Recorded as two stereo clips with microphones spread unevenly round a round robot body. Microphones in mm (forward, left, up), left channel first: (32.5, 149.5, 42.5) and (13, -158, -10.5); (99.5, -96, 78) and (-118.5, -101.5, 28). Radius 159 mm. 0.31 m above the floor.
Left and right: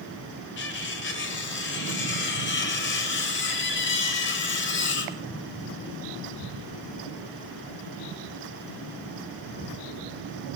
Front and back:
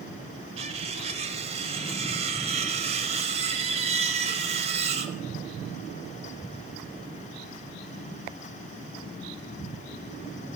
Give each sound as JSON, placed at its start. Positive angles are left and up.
{"t": 0.6, "sound": "cutlery clinking", "azimuth_deg": 140, "distance_m": 0.9}